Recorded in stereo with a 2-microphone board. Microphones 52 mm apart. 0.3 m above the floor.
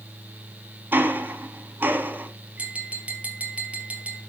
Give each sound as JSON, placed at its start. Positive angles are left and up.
{"t": 0.9, "sound": "ticking", "side_deg": -40, "distance_m": 1.2}
{"t": 2.6, "sound": "tapping", "side_deg": -25, "distance_m": 2.5}